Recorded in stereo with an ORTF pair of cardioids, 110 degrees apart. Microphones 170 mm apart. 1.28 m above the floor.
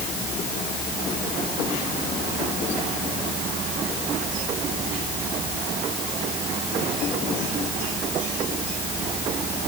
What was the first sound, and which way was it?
Only background noise.